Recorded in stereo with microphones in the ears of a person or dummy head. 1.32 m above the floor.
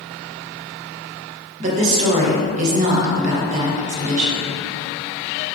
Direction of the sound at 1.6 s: 35° right (ahead or behind).